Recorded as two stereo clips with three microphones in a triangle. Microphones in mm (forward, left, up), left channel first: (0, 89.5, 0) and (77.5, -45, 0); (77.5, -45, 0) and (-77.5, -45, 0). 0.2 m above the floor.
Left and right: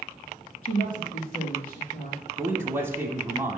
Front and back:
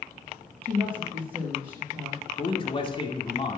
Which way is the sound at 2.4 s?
Straight ahead.